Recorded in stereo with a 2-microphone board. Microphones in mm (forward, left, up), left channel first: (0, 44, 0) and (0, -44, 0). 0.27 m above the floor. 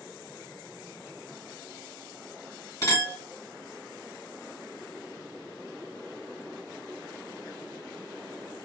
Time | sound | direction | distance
2.8 | a clink | 40° left (ahead or behind) | 1.6 m